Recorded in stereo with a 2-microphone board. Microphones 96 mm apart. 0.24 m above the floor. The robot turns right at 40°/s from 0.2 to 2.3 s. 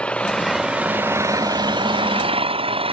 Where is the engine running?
170° left; by 2.9 s 105° right.